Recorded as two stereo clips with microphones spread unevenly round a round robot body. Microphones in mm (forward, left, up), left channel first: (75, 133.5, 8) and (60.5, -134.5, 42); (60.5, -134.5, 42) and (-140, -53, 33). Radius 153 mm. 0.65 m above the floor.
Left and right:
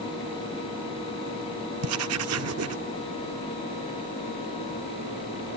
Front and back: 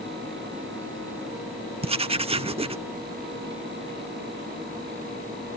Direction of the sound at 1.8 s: 140° right.